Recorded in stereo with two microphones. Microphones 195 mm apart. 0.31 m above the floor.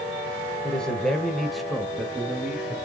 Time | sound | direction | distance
0.6 | a man speaking | 5° left (ahead or behind) | 1.5 m